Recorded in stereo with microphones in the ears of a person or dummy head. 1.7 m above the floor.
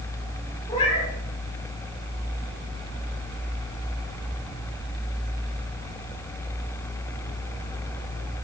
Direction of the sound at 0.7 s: 35° left (ahead or behind).